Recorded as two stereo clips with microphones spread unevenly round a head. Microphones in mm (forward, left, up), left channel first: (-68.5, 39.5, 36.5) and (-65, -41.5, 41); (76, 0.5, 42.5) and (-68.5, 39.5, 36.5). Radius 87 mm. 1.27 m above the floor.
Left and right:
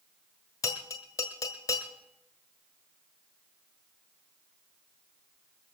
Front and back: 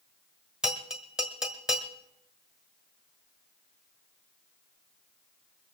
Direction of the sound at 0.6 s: 80° left.